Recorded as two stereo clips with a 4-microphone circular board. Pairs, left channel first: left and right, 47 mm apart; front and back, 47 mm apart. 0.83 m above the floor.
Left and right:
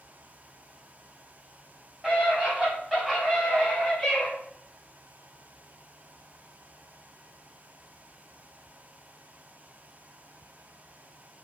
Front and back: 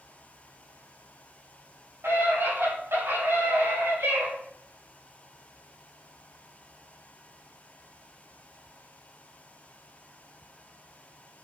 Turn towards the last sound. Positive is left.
turn(degrees=175)